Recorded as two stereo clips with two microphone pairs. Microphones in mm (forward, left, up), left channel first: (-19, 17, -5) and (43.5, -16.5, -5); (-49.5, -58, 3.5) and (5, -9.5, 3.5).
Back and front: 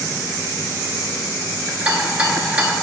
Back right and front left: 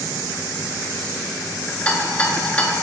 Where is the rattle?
85° right, 0.6 m.